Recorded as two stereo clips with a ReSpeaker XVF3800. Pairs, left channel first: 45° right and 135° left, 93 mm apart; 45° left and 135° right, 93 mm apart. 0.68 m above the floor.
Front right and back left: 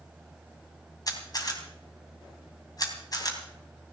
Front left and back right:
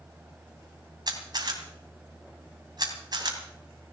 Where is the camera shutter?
95° right, 2.5 m.